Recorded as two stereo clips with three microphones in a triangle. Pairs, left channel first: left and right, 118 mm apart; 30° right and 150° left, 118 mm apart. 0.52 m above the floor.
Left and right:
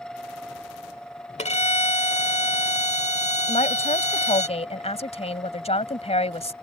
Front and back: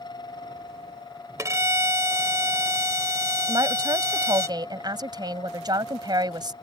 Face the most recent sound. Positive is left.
turn(degrees=100)